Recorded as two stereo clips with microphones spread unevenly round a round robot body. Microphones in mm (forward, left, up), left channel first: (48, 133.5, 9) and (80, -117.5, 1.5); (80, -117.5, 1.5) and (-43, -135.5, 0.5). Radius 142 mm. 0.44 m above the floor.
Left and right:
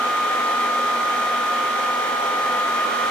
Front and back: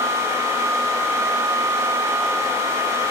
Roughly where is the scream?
No scream in this recording.